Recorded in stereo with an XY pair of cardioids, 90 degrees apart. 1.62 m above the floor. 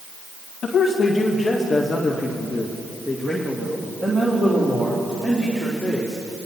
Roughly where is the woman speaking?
Ahead left.